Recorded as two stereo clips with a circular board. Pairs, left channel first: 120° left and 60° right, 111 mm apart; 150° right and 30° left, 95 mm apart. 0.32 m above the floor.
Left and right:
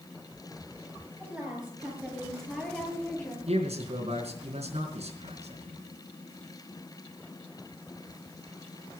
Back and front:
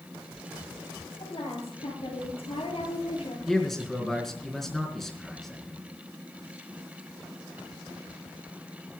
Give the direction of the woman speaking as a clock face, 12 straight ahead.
5 o'clock.